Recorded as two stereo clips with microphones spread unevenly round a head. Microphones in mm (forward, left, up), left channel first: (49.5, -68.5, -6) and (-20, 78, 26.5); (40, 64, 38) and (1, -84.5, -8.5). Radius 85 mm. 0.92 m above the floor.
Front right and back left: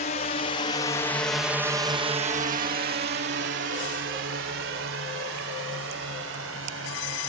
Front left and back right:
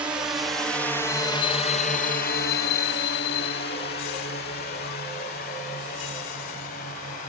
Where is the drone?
35° right; by 7.3 s 120° left.